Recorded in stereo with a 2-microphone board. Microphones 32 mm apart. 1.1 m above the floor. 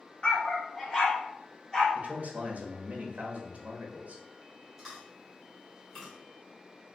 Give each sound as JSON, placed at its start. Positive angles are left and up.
{"t": 0.2, "sound": "a dog barking", "side_deg": 30, "distance_m": 0.6}
{"t": 1.9, "sound": "a man speaking", "side_deg": -45, "distance_m": 1.0}
{"t": 4.8, "sound": "chewing", "side_deg": 0, "distance_m": 1.5}